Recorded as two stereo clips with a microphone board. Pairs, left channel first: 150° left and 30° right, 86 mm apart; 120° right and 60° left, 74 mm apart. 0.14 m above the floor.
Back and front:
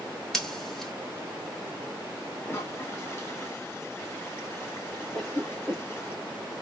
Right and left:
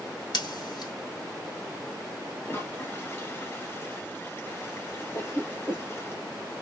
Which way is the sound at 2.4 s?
160° right.